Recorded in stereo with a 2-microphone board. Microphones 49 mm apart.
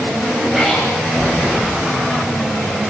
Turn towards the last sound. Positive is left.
turn(degrees=-10)  # may be behind; listen again after turning